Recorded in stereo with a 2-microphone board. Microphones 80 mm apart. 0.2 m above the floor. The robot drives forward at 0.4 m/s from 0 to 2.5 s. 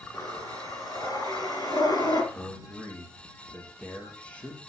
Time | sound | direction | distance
0.1 | breathing | 40° left (ahead or behind) | 4 m
2.3 | a man speaking | 15° left (ahead or behind) | 3.5 m